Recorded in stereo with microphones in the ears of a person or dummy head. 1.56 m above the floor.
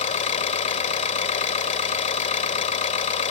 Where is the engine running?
30° left (ahead or behind).